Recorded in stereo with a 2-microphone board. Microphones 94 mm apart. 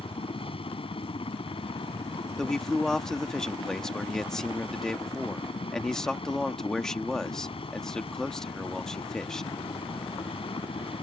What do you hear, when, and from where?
0.0 s a helicopter: 80° left
2.4 s a man speaking: 5° left (ahead or behind)